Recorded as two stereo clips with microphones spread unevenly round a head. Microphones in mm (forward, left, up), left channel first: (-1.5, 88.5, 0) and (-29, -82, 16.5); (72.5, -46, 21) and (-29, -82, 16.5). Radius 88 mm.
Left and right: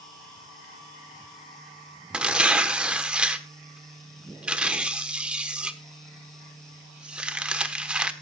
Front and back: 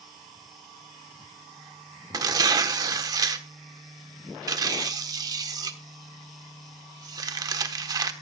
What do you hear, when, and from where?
2.1 s tearing paper: 165° right, 1.1 m